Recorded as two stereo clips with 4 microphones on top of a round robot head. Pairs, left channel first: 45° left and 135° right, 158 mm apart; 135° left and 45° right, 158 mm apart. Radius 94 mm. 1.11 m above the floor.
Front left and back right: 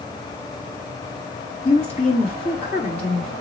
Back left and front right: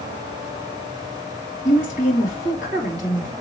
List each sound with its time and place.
1.6 s a woman speaking: 95° left, 2.5 m